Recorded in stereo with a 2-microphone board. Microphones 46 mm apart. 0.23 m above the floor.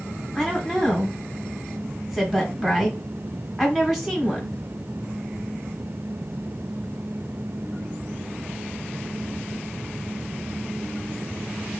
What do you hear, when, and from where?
0.3 s a woman speaking: 5° right (ahead or behind), 1.1 m